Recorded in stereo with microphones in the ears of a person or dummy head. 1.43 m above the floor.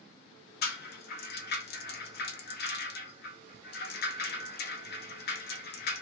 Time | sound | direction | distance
0.6 | a rattle | 45° left (ahead or behind) | 0.5 m